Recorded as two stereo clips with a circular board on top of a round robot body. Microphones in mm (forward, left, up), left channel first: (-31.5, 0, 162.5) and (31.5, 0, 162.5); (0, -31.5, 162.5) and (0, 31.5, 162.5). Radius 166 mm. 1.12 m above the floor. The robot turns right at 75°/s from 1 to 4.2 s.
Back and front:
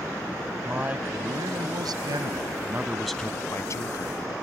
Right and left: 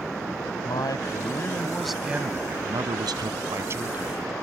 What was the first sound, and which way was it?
A man speaking, 65° right.